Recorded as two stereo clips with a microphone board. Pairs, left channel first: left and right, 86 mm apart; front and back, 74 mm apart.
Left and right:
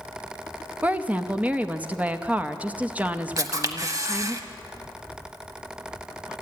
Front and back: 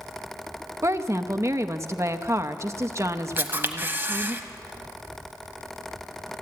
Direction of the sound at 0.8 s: 155° right.